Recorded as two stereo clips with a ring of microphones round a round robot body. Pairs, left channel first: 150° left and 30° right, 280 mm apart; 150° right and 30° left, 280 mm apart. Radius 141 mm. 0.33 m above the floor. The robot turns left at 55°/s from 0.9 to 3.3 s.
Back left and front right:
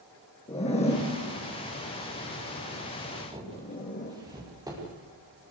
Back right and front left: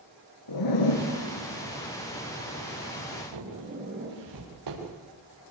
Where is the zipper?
140° right, 4.5 m; by 4.1 s 85° left, 4.5 m.